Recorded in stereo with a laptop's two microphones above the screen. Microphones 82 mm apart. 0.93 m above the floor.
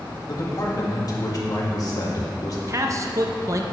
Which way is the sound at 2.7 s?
40° right (ahead or behind).